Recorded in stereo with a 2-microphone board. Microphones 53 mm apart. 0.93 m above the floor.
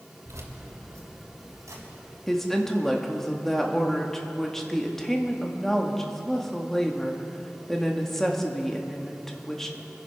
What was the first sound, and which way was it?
Keys jangling, 75° right (ahead or behind).